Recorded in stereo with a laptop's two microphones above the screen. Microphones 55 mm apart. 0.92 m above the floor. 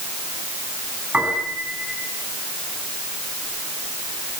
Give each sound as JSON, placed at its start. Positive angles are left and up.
{"t": 1.1, "sound": "a piano", "side_deg": -25, "distance_m": 9.0}